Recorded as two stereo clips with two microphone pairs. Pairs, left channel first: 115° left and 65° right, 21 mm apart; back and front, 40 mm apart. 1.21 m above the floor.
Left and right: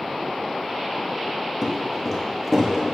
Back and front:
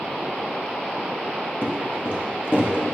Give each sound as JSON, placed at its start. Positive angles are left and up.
{"t": 1.6, "sound": "footsteps", "azimuth_deg": -155, "distance_m": 2.5}